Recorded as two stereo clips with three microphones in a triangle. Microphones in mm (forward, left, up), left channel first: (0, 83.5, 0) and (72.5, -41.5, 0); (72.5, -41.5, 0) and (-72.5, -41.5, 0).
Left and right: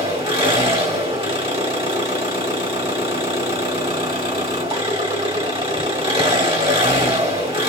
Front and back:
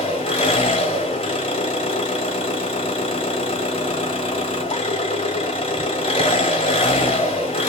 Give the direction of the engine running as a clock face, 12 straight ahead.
1 o'clock.